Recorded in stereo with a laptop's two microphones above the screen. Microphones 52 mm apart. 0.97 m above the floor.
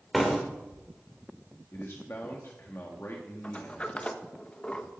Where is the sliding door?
25° left (ahead or behind), 1.1 m.